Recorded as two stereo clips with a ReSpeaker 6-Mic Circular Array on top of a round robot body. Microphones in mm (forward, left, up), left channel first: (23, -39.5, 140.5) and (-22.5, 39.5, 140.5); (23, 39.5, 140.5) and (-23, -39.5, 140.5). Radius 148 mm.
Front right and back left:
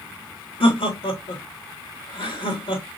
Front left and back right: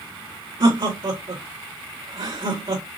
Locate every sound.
0.6 s laughter: 80° right, 2.5 m